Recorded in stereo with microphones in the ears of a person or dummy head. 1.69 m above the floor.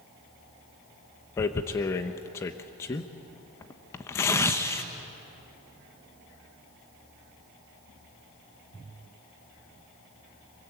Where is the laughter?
I don't hear laughter.